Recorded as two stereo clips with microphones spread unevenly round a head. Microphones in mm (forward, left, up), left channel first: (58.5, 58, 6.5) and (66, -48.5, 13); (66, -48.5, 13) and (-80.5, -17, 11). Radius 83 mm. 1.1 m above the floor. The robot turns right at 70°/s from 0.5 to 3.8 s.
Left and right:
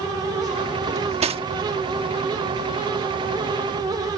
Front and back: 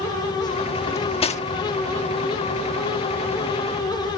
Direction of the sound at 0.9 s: 90° right.